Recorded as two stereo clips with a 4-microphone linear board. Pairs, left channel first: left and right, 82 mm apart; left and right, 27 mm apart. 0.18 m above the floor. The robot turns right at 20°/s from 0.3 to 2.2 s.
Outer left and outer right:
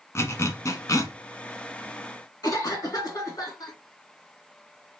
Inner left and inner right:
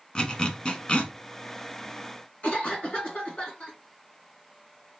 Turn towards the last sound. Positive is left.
turn(degrees=50)  # may be behind; listen again after turning